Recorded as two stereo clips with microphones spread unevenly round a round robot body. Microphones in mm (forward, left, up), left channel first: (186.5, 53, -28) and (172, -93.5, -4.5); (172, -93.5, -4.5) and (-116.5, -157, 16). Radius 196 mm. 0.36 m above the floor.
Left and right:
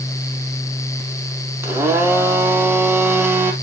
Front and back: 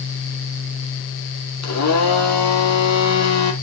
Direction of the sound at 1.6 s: 20° right.